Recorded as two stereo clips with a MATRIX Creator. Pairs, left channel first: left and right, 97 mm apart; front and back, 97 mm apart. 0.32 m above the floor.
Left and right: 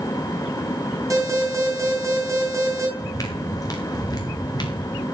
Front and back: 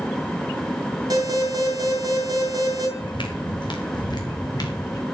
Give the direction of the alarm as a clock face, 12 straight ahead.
5 o'clock.